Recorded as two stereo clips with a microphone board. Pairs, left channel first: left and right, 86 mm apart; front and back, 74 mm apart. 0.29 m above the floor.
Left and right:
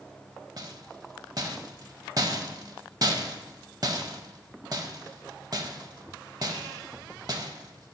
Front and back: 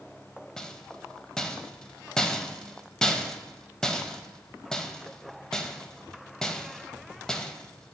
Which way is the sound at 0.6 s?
80° right.